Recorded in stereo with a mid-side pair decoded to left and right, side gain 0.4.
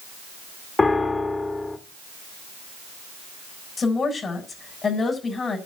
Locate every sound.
0.8 s a piano: 30° left, 2.0 m
3.8 s a woman speaking: 40° left, 7 m